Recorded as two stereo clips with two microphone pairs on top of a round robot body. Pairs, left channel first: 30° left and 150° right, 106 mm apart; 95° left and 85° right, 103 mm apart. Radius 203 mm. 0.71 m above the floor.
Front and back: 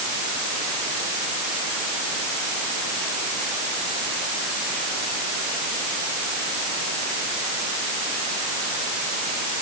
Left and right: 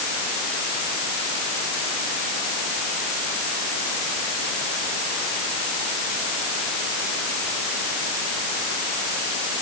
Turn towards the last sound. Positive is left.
No sound to turn to.